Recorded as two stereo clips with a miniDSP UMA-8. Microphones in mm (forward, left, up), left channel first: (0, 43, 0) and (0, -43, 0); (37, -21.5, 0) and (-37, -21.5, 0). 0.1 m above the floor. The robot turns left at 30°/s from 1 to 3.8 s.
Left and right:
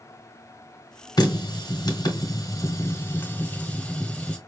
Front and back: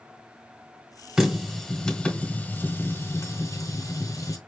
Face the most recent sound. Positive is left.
turn(degrees=20)